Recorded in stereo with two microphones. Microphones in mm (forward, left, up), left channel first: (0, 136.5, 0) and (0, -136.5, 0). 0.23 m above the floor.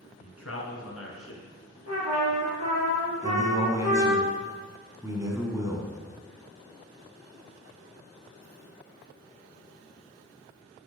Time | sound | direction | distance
0.2 | a man speaking | 60° left (ahead or behind) | 3 m
1.9 | a trumpet | 70° right (ahead or behind) | 3.5 m
3.2 | a man speaking | 10° right (ahead or behind) | 2 m